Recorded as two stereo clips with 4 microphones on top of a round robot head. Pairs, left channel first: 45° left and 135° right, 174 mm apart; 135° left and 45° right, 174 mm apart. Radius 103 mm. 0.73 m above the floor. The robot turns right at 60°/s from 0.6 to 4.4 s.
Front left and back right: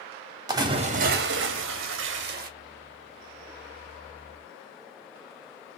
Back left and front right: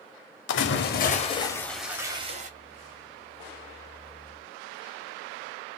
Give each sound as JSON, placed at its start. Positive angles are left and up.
{"t": 0.5, "sound": "a splash", "azimuth_deg": 155, "distance_m": 0.7}